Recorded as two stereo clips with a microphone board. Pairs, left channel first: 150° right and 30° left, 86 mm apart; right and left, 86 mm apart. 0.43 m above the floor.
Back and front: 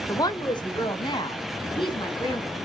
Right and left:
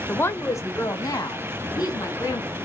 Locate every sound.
0.1 s a woman speaking: 150° right, 1.0 m; by 2.6 s 130° right, 4.5 m